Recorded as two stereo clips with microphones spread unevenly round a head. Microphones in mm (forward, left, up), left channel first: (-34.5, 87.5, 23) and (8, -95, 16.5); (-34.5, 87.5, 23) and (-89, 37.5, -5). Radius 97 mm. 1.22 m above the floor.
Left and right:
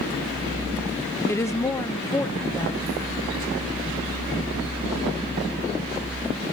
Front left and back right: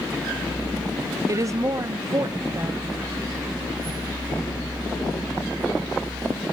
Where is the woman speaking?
Straight behind, 1.1 m.